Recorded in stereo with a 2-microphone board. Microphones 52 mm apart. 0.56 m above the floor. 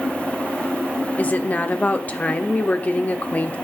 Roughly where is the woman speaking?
Left.